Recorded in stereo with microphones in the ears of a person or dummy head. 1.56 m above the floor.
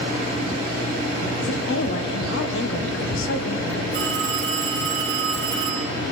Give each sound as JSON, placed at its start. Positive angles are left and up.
{"t": 1.4, "sound": "a woman speaking", "side_deg": 75, "distance_m": 1.4}
{"t": 3.9, "sound": "a phone ringing", "side_deg": -55, "distance_m": 4.0}